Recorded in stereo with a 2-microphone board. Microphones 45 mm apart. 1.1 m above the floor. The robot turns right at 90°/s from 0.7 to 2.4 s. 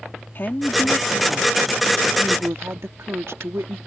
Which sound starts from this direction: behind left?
A woman speaking, at 0.3 s.